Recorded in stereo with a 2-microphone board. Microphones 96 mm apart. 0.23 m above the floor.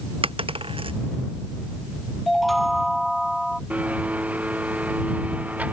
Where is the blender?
15° right (ahead or behind).